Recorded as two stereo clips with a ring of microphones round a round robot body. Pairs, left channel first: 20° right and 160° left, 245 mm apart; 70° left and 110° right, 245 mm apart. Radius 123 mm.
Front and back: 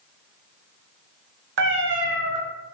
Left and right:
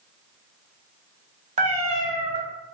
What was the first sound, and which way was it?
A cat meowing, 170° right.